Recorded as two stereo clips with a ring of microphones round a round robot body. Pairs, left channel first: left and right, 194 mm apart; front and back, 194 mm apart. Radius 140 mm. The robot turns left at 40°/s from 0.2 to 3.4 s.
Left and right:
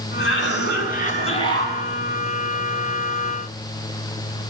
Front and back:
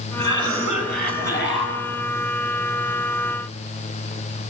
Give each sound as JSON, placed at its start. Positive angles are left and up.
{"t": 0.2, "sound": "a cough", "azimuth_deg": 75, "distance_m": 9.5}